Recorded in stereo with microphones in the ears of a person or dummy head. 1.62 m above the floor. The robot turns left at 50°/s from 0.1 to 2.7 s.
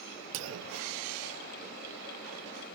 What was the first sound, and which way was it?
A clunk, 60° right.